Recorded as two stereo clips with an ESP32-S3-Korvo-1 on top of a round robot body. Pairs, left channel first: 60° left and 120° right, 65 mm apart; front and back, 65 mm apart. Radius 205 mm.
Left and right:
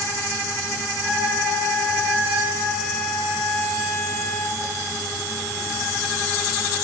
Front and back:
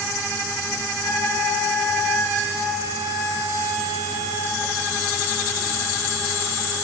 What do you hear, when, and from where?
1.0 s a trumpet: 20° right, 8.5 m